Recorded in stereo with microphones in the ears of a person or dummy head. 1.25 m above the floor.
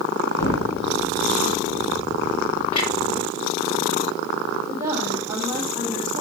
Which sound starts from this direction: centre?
A woman speaking, at 4.7 s.